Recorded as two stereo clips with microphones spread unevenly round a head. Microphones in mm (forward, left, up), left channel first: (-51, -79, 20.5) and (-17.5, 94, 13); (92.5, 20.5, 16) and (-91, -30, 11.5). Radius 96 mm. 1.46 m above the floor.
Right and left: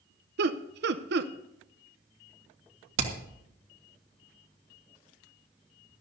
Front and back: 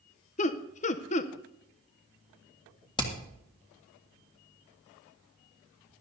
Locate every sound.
0.4 s laughter: 60° left, 0.6 m
3.0 s hammering: 85° left, 1.9 m